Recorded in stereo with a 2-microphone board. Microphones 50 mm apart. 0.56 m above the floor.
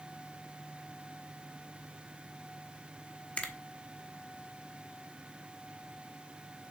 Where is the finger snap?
25° left (ahead or behind), 1.1 m.